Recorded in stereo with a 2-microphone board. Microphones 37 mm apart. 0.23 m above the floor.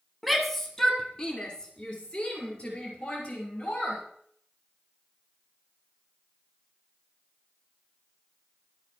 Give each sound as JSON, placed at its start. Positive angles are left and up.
{"t": 0.2, "sound": "a shout", "side_deg": 0, "distance_m": 1.4}